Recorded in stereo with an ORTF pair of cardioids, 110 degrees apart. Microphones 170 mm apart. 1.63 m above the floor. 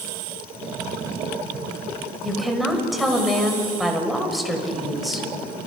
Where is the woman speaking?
Straight ahead, 6.5 m.